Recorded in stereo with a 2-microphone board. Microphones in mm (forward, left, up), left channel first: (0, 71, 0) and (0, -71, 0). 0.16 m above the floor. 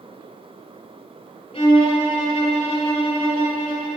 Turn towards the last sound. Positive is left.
turn(degrees=45)  # may be behind; listen again after turning